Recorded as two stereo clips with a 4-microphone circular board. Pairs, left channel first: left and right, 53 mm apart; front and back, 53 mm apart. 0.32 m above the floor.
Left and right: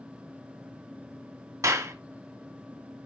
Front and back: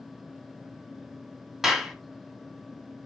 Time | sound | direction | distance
1.6 | a clap | 95° right | 1.7 m